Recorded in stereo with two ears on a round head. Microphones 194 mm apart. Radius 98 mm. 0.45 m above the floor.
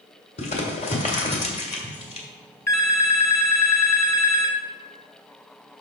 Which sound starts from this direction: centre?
A phone ringing, at 2.7 s.